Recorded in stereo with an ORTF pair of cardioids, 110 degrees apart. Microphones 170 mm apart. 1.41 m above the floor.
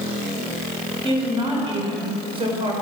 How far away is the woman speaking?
About 5 m.